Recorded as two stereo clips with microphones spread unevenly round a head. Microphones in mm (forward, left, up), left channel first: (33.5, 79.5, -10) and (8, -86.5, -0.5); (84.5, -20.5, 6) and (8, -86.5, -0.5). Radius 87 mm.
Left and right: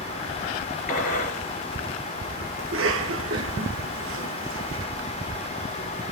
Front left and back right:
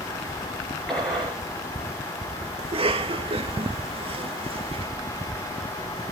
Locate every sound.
0.9 s a gunshot: 125° left, 3.5 m
2.6 s a cough: 115° right, 1.8 m